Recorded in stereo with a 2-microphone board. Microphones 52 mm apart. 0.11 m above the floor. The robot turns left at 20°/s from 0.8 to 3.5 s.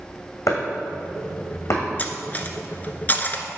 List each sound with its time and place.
0.5 s chopping: 80° left, 2.5 m; by 1.8 s 60° left (ahead or behind), 2.5 m
2.0 s cutlery clinking: 35° left (ahead or behind), 0.8 m